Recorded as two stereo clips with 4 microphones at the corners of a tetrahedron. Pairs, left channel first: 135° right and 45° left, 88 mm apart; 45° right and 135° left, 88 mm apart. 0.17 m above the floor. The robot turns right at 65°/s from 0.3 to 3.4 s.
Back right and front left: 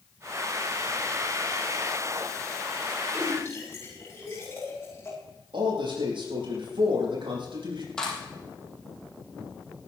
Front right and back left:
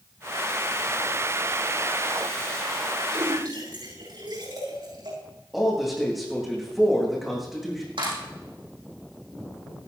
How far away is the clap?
About 6 m.